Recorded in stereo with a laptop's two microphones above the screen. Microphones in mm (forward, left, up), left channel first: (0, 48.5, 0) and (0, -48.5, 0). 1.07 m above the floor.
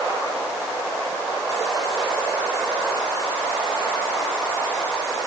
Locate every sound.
Only background noise.